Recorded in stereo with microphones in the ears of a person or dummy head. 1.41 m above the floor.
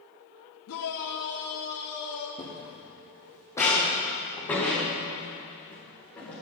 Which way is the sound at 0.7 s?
80° left.